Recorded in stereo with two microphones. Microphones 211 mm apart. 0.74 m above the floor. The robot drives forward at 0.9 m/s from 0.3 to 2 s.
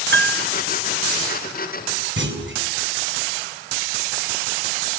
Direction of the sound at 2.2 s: 60° right (ahead or behind).